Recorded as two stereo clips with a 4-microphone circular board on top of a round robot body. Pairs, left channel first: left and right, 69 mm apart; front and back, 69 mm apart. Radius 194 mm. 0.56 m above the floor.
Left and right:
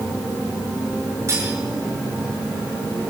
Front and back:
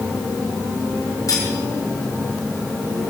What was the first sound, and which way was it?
Cutlery clinking, 40° right.